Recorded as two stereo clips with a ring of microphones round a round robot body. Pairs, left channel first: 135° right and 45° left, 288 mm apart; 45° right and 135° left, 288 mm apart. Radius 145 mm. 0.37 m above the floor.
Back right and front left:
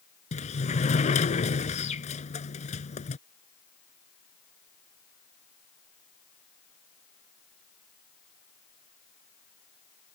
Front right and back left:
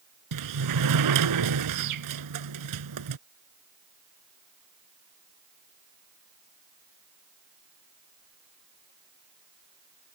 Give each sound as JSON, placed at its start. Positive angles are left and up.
{"t": 0.3, "sound": "a sliding door", "azimuth_deg": 160}